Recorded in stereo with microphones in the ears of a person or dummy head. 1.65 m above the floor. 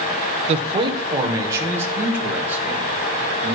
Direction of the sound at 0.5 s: 35° right (ahead or behind).